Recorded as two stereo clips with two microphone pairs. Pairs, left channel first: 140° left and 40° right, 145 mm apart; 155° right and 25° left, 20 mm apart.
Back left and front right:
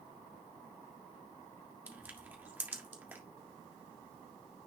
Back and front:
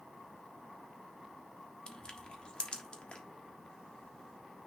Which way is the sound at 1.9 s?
120° right.